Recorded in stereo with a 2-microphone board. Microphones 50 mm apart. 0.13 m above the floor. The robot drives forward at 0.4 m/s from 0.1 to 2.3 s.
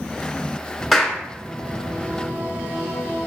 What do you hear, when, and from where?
0.9 s a clap: centre (ahead or behind), 1.2 m